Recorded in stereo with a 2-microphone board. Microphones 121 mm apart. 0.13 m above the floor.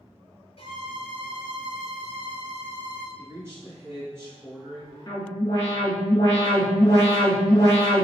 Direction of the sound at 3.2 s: 25° right (ahead or behind).